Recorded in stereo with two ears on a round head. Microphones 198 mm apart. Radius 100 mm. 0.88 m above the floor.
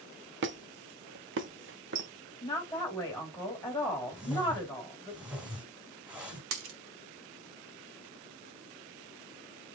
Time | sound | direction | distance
0.4 | a squeak | 55° right (ahead or behind) | 0.8 m
2.4 | a woman speaking | 15° left (ahead or behind) | 2 m
4.1 | a whoosh | 5° right (ahead or behind) | 1.8 m
6.5 | a dropped coin | 70° right (ahead or behind) | 1.1 m